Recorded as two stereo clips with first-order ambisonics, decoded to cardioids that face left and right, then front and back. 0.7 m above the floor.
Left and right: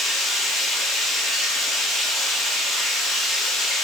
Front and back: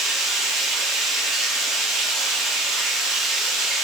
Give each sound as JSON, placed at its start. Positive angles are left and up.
{"t": 0.0, "sound": "running water", "azimuth_deg": 145, "distance_m": 1.7}